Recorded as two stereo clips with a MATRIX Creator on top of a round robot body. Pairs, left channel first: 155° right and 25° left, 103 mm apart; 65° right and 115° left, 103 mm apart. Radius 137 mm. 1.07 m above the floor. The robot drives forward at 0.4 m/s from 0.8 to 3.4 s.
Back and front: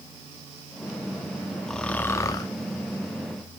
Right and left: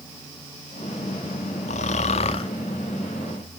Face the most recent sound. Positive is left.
turn(degrees=-135)